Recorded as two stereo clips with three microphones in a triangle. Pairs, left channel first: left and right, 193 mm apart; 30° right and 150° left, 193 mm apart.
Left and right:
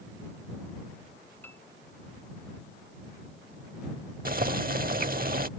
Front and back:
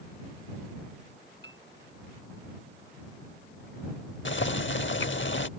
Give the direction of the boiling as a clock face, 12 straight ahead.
2 o'clock.